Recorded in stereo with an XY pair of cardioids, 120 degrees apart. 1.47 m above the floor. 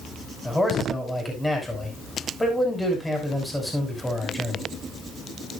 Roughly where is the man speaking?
Ahead.